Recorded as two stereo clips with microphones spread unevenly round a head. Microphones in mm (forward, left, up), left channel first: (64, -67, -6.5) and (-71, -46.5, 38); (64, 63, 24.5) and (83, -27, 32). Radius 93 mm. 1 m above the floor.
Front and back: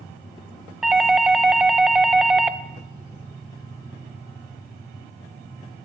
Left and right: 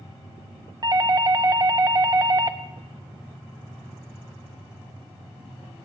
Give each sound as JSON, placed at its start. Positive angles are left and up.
{"t": 0.8, "sound": "a doorbell", "azimuth_deg": -75, "distance_m": 1.4}